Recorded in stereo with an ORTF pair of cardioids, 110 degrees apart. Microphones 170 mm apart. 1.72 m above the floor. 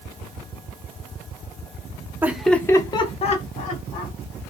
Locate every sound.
2.2 s laughter: 10° right, 0.6 m; by 4.1 s 55° left, 1.3 m